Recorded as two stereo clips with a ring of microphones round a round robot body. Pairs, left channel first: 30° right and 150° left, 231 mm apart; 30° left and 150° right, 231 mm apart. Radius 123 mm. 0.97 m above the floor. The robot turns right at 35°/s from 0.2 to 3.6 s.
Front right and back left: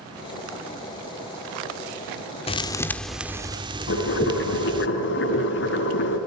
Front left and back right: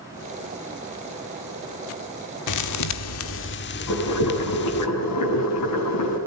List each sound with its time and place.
2.5 s a thud: 40° left, 1.4 m; by 4.9 s 80° left, 1.4 m
3.9 s boiling: 15° left, 8.5 m